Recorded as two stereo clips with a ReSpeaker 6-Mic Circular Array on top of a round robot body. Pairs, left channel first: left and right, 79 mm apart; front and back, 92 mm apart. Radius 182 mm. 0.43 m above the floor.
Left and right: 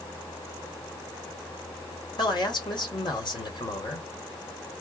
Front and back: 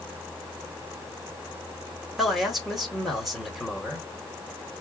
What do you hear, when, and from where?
2.2 s a man speaking: 90° left, 2.5 m